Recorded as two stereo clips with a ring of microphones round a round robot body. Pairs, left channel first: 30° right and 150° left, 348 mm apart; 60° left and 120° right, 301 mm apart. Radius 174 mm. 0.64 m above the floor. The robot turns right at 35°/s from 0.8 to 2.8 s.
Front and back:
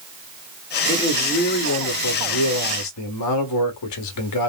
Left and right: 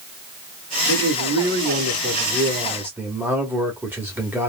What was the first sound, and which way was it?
A man speaking, 105° right.